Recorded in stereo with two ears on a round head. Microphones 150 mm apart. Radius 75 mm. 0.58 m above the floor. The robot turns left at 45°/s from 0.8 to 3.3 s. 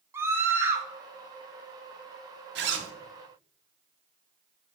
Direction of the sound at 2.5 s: 65° right (ahead or behind).